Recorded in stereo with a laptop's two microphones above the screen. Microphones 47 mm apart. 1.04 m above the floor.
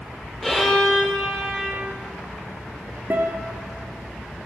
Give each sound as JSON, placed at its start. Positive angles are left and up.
{"t": 0.4, "sound": "a violin", "side_deg": 0, "distance_m": 4.5}
{"t": 3.1, "sound": "a guitar", "side_deg": -50, "distance_m": 1.7}